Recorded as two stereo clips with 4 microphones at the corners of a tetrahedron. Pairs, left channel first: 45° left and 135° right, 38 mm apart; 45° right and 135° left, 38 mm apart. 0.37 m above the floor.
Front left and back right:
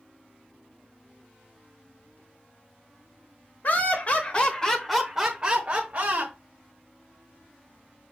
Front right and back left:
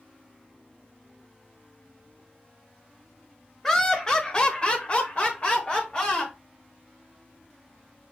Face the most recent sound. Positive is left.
turn(degrees=-100)